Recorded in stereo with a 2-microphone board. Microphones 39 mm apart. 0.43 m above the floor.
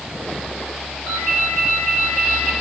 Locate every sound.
1.1 s a ringtone: 80° right, 4.5 m